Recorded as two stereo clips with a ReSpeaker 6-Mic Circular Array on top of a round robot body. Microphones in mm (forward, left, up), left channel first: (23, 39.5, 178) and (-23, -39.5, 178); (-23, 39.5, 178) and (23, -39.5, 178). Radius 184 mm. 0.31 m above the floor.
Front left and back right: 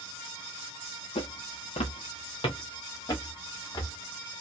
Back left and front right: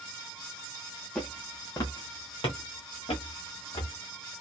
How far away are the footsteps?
About 0.6 m.